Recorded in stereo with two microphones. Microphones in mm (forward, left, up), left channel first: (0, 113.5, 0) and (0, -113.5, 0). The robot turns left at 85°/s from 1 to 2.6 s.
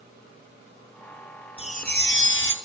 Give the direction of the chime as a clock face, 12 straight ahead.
7 o'clock.